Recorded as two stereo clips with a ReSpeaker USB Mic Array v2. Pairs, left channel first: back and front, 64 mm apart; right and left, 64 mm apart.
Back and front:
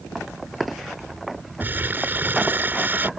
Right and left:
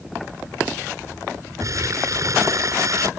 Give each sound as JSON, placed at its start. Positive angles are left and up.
{"t": 1.6, "sound": "crumpling", "azimuth_deg": 60}